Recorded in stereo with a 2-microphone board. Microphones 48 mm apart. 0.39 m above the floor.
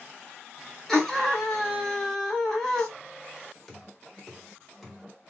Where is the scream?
10° left (ahead or behind), 1.3 m.